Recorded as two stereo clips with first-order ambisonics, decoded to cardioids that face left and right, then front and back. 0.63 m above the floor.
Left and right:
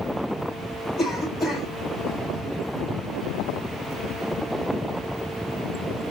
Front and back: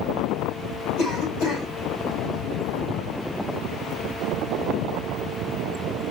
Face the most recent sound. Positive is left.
turn(degrees=15)